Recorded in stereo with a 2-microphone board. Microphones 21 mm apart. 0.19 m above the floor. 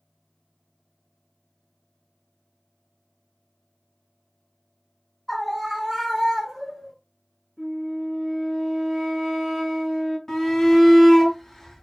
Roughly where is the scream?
Centre.